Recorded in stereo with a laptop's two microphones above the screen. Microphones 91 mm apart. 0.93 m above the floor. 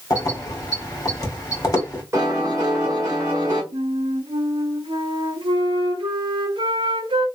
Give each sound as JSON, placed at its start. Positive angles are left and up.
{"t": 0.1, "sound": "keys jangling", "side_deg": 40, "distance_m": 1.7}
{"t": 2.1, "sound": "a piano", "side_deg": -30, "distance_m": 1.6}
{"t": 3.7, "sound": "a flute", "side_deg": -75, "distance_m": 0.9}